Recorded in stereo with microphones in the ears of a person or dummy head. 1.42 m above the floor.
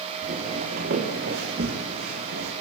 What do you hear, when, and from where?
0.2 s footsteps: 50° right (ahead or behind), 6 m; by 2.5 s 60° right (ahead or behind), 5.5 m